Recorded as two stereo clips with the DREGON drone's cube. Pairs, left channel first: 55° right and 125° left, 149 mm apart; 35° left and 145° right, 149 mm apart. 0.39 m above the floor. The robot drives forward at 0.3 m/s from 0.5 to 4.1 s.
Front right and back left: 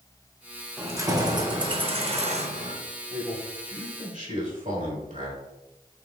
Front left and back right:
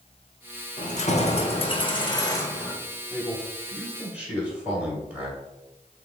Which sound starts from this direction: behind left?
A man speaking, at 3.1 s.